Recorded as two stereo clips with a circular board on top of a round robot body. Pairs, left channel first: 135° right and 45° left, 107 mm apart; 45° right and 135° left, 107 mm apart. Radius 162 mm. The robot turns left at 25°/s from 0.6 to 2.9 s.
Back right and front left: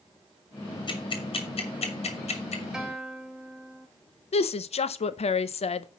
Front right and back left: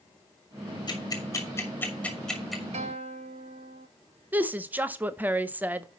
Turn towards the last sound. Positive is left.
turn(degrees=-150)